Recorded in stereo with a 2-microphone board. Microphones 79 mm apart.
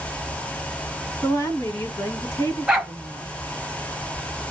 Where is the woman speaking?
45° left (ahead or behind), 1.4 m.